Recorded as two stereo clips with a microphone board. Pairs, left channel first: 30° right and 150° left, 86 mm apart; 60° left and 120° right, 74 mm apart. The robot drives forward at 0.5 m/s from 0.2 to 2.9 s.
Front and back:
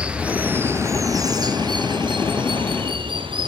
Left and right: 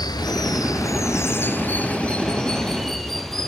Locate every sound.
0.0 s running water: 75° left, 0.9 m; by 3.5 s 145° left, 1.4 m